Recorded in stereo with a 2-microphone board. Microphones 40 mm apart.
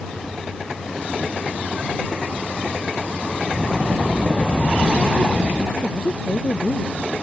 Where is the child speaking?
30° left (ahead or behind).